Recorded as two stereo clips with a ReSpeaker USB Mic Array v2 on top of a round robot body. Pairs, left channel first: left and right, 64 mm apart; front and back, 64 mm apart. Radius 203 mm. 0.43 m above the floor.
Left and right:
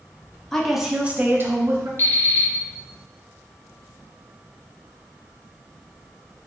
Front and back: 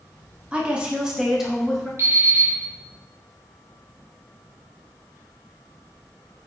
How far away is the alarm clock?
About 1.9 m.